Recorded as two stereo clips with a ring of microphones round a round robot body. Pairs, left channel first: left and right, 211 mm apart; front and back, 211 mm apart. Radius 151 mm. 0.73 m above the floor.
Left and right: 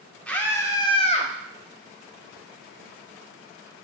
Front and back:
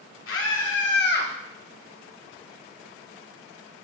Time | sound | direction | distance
0.3 | a scream | 5° left | 2 m